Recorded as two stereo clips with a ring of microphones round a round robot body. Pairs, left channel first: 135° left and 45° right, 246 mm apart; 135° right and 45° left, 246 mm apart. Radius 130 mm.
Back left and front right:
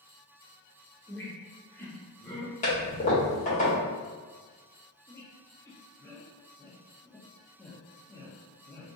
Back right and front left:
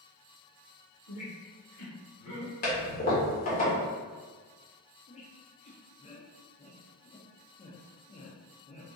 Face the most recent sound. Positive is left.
turn(degrees=-160)